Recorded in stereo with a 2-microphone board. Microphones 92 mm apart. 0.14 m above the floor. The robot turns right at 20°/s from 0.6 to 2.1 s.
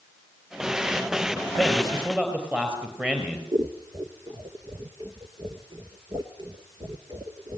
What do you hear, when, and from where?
1.6 s a man speaking: centre (ahead or behind), 3.5 m; by 3.4 s 10° right (ahead or behind), 3.5 m
3.5 s scissors: 55° right (ahead or behind), 1.2 m